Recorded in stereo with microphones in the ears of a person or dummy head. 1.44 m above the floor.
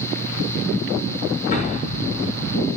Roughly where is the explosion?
Left.